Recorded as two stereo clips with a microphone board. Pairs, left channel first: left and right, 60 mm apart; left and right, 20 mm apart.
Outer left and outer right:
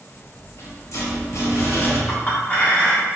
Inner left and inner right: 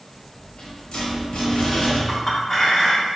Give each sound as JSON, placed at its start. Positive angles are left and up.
{"t": 0.1, "sound": "a rattle", "side_deg": 55, "distance_m": 1.4}
{"t": 2.1, "sound": "a clink", "side_deg": 25, "distance_m": 1.5}